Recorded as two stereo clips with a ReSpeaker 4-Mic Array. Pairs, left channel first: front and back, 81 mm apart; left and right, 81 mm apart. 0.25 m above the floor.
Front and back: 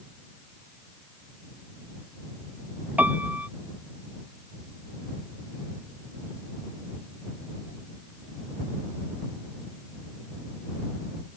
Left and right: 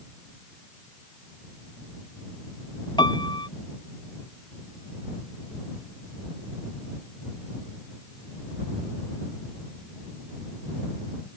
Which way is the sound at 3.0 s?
110° left.